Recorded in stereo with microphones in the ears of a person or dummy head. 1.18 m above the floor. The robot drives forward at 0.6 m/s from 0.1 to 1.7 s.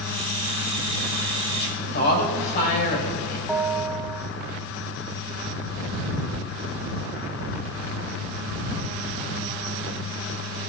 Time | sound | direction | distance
1.6 | a woman speaking | 55° left (ahead or behind) | 6 m
3.5 | a bell | centre (ahead or behind) | 1.4 m